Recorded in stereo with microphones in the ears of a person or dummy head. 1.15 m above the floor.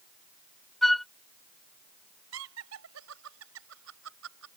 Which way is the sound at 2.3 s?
75° right (ahead or behind).